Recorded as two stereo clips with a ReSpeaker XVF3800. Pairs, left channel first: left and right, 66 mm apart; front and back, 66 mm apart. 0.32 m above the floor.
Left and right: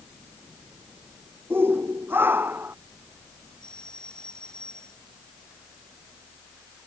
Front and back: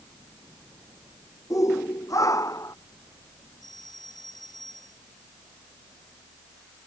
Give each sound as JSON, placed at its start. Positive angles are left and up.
{"t": 1.5, "sound": "a shout", "azimuth_deg": -35}
{"t": 3.6, "sound": "a doorbell", "azimuth_deg": 10}